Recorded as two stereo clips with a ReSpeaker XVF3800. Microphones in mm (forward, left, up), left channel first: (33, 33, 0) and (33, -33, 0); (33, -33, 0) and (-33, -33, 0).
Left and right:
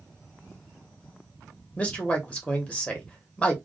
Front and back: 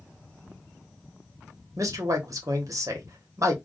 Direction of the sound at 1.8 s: 155° left.